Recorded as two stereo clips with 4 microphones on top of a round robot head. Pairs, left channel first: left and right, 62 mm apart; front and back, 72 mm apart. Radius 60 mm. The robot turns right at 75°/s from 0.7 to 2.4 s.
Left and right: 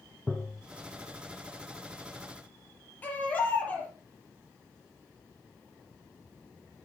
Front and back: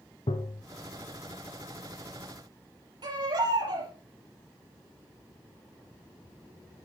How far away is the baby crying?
About 6 m.